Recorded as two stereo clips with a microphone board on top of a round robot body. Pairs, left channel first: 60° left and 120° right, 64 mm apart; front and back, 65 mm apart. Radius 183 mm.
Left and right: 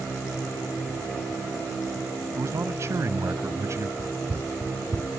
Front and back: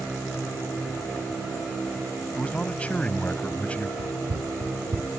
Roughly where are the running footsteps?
Behind.